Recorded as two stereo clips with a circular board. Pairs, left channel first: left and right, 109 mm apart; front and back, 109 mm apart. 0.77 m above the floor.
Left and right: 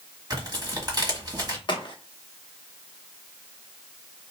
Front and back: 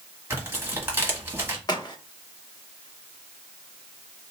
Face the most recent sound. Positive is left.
turn(degrees=50)